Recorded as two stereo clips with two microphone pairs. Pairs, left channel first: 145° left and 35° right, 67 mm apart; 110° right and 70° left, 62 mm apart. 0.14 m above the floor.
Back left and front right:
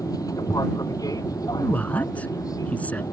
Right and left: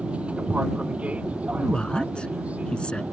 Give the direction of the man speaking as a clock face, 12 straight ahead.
6 o'clock.